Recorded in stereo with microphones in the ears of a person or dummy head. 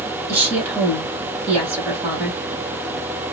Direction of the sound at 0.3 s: 15° right (ahead or behind).